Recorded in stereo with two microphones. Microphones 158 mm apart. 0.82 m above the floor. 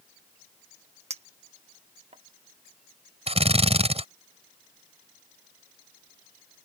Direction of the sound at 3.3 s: 40° right (ahead or behind).